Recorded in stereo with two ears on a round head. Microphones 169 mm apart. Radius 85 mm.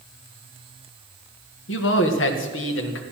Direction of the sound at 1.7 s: 70° left (ahead or behind).